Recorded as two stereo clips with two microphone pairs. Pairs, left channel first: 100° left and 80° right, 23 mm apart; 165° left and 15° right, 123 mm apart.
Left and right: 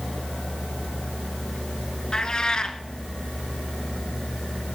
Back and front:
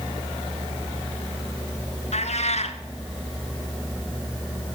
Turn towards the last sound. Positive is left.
turn(degrees=155)